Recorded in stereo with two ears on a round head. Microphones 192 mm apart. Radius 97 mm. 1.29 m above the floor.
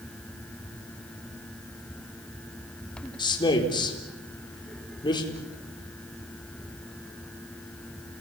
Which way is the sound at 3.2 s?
25° left (ahead or behind).